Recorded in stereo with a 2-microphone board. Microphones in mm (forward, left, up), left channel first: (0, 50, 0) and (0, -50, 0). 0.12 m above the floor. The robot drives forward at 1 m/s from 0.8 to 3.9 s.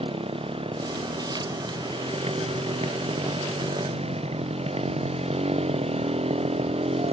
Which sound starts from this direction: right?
A motorcycle, at 0.0 s.